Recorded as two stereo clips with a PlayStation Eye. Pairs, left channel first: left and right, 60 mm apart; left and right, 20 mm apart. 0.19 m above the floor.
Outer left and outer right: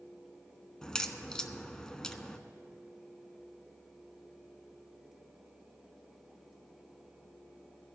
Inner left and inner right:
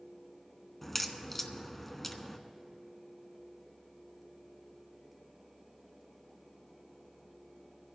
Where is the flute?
No flute in this recording.